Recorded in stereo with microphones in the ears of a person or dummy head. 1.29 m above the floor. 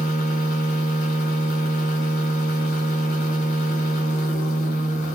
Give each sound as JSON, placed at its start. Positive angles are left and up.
{"t": 0.0, "sound": "a machine running", "side_deg": 40, "distance_m": 1.3}